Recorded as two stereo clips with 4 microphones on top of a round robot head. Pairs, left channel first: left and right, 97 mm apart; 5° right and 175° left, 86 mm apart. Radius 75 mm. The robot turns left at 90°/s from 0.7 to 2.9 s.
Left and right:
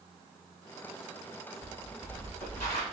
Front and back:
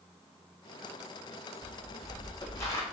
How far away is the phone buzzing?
No phone buzzing in this recording.